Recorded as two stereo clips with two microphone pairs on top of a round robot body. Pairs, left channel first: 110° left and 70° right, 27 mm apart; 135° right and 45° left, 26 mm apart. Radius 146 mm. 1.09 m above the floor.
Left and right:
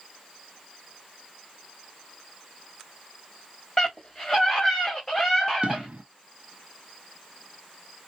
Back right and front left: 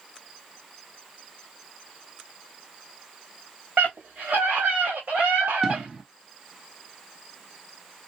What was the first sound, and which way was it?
A scream, 35° left.